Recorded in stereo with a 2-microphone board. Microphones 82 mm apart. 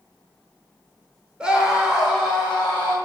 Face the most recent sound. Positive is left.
turn(degrees=-5)  # may be behind; listen again after turning